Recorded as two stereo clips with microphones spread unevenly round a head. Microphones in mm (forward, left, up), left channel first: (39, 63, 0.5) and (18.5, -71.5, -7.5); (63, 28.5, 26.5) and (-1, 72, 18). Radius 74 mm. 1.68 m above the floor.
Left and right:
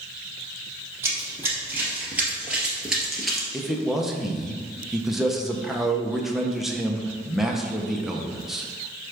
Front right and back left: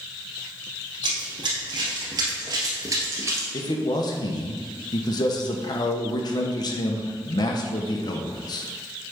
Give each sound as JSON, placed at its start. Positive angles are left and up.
{"t": 1.0, "sound": "running footsteps", "azimuth_deg": -175, "distance_m": 2.5}
{"t": 3.5, "sound": "a man speaking", "azimuth_deg": -10, "distance_m": 1.1}